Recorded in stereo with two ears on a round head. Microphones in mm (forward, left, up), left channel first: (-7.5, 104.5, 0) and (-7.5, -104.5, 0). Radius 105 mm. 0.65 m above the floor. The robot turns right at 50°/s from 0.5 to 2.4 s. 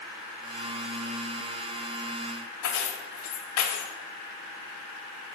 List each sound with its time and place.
2.6 s keys jangling: 80° left, 1.7 m